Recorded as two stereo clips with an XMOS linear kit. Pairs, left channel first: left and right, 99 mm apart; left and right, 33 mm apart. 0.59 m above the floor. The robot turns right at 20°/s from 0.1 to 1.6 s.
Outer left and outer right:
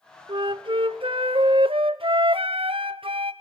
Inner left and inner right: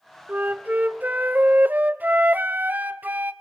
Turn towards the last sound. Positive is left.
turn(degrees=-65)  # may be behind; listen again after turning